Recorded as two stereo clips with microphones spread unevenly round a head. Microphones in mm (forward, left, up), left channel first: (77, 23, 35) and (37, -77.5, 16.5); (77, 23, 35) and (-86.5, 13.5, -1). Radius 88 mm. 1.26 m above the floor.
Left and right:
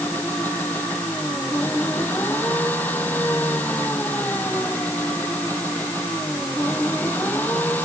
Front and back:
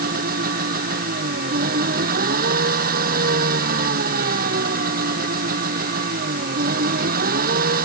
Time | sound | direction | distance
0.0 | an engine running | 150° left | ?